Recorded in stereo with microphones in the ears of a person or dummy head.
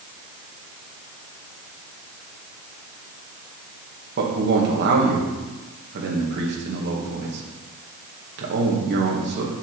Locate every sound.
4.2 s a man speaking: 60° right (ahead or behind), 1.6 m